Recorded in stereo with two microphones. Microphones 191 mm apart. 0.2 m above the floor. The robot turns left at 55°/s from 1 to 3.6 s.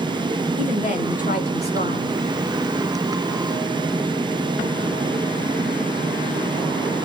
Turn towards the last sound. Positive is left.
turn(degrees=-15)